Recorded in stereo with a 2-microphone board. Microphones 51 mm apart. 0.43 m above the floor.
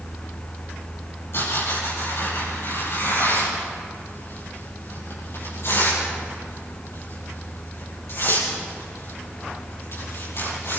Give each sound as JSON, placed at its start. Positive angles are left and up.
{"t": 1.3, "sound": "tearing paper", "side_deg": 55, "distance_m": 9.0}